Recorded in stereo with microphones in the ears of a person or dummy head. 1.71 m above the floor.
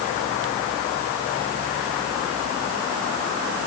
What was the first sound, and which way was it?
Only background noise.